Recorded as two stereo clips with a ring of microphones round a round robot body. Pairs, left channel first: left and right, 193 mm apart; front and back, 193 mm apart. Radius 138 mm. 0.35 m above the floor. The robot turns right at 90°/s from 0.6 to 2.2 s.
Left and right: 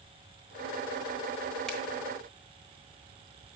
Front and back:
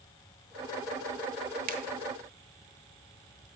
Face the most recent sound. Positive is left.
turn(degrees=-140)